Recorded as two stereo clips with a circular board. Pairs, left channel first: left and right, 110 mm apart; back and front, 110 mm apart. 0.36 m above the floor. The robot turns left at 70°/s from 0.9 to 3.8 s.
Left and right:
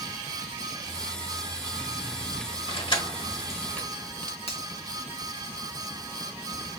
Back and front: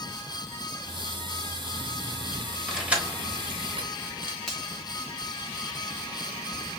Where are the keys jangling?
90° left, 1.1 m; by 4.4 s 10° left, 1.1 m.